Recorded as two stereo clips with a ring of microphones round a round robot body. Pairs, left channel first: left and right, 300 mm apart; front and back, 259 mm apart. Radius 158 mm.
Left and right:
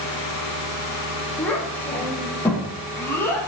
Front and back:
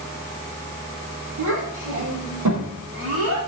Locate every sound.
1.4 s a child speaking: 175° left, 9.5 m; by 3.5 s 170° left, 10.5 m